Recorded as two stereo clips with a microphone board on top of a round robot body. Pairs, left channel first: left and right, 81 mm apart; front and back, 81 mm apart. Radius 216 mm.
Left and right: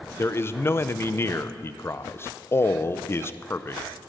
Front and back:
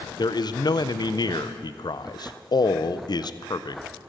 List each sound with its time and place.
0.2 s a man speaking: 30° left, 0.6 m